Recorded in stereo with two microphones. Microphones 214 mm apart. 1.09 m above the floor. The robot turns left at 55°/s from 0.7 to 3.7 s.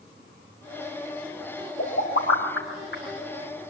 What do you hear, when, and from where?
1.8 s a pop: 50° left (ahead or behind), 5 m; by 3.0 s 60° left (ahead or behind), 5 m